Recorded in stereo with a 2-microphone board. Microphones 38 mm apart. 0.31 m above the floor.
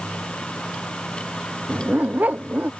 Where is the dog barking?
50° right (ahead or behind).